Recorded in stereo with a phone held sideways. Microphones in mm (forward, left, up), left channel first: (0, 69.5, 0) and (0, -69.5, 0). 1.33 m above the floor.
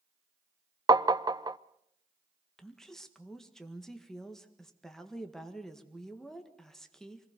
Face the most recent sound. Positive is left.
turn(degrees=5)  # may be behind; listen again after turning